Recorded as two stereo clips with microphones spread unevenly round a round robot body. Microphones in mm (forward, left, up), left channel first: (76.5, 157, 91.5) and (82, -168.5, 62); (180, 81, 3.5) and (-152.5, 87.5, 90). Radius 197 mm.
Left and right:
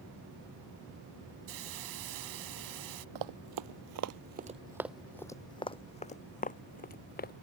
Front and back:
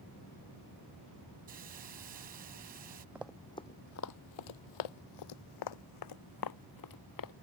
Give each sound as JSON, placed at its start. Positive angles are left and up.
{"t": 1.5, "sound": "a hiss", "azimuth_deg": -110}
{"t": 3.1, "sound": "running footsteps", "azimuth_deg": -105}